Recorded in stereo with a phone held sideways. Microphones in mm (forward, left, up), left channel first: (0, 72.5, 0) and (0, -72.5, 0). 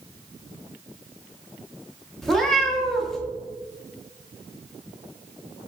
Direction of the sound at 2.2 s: Centre (ahead or behind).